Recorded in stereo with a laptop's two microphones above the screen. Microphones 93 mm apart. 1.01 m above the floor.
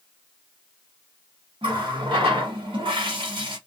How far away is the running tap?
About 1.0 m.